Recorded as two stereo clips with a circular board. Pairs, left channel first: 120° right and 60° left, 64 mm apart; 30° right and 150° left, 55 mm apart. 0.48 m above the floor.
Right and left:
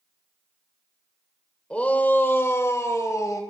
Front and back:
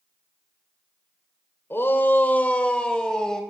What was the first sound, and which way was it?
A shout, 50° right.